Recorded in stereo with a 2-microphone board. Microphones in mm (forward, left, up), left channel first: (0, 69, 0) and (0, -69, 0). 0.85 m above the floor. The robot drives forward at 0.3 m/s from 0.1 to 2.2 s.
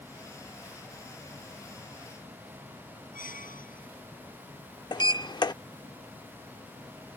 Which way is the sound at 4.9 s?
30° left (ahead or behind).